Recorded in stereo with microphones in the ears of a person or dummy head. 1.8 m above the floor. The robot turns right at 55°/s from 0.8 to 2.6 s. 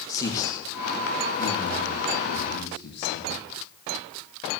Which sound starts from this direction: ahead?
A man speaking, at 0.1 s.